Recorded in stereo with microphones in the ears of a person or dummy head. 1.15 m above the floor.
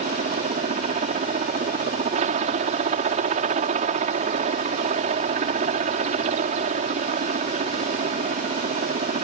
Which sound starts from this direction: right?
A helicopter, at 0.0 s.